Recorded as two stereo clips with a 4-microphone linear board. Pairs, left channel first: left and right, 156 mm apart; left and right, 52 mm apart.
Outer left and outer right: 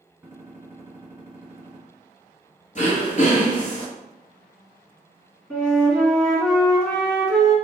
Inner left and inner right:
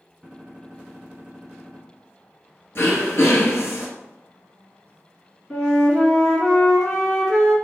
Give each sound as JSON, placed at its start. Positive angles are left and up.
{"t": 0.2, "sound": "a gunshot", "side_deg": -15, "distance_m": 1.0}
{"t": 2.8, "sound": "throat clearing", "side_deg": 55, "distance_m": 1.1}
{"t": 5.5, "sound": "a flute", "side_deg": 5, "distance_m": 1.2}